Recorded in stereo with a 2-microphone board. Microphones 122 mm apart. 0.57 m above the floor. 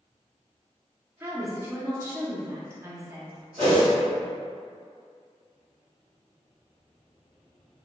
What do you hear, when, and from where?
1.2 s a woman speaking: 20° right (ahead or behind), 0.6 m
3.6 s a whoosh: 45° right (ahead or behind), 1.9 m